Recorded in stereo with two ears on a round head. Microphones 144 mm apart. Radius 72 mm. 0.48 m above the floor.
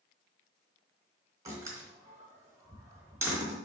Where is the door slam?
20° right (ahead or behind), 3 m.